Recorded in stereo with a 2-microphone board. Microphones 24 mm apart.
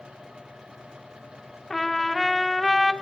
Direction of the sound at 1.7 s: 10° left (ahead or behind).